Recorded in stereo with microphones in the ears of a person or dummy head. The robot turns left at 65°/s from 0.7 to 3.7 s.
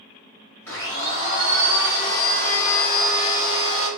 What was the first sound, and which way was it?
A blender, 150° left.